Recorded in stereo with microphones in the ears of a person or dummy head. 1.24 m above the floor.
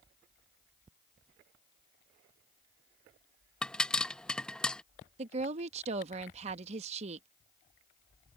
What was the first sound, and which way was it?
A pop, centre (ahead or behind).